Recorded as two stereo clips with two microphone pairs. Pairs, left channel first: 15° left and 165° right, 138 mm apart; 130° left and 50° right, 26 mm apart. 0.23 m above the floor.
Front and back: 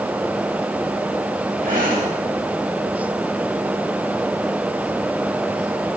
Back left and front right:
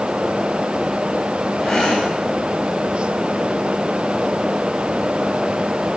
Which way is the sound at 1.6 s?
175° right.